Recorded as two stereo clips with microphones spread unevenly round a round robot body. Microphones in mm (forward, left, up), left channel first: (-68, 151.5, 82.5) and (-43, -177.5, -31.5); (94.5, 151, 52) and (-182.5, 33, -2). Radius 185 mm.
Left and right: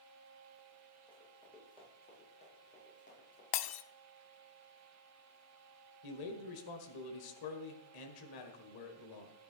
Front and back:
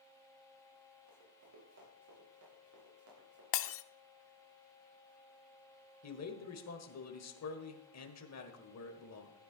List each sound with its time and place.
1.1 s running footsteps: 170° left, 8.5 m; by 3.4 s 160° left, 8 m
3.5 s breaking glass: 55° left, 0.5 m
6.0 s a man speaking: 60° left, 1.8 m